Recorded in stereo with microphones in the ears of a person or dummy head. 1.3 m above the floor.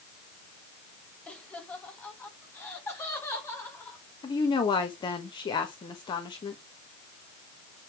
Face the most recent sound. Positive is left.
turn(degrees=25)  # may be behind; listen again after turning